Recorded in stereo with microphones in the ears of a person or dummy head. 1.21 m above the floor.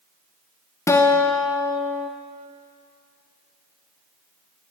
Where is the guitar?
15° left (ahead or behind), 0.5 m.